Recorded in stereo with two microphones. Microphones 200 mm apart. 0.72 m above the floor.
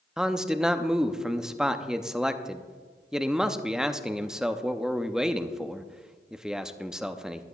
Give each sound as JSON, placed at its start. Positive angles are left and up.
{"t": 0.2, "sound": "a man speaking", "side_deg": -5, "distance_m": 0.6}